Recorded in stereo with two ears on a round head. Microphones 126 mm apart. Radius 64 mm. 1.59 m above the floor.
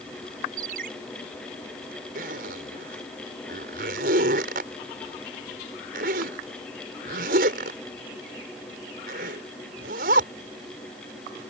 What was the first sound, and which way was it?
A ringtone, 70° right (ahead or behind).